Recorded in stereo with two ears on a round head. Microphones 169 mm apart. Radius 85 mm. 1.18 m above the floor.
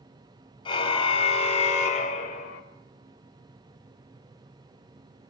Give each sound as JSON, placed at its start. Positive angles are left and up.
{"t": 0.7, "sound": "a car horn", "side_deg": 25, "distance_m": 3.5}